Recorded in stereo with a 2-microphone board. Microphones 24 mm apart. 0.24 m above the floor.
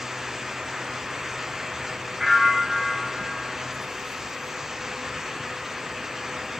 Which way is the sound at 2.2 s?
10° right (ahead or behind).